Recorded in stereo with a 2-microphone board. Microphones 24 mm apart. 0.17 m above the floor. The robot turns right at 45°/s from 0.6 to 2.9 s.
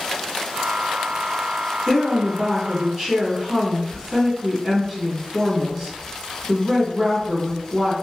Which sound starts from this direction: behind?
A woman speaking, at 1.9 s.